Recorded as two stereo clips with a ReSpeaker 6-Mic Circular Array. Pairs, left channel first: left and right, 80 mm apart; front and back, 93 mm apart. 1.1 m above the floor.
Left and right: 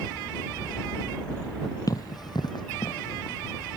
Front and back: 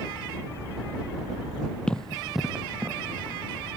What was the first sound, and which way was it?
Running footsteps, 75° left.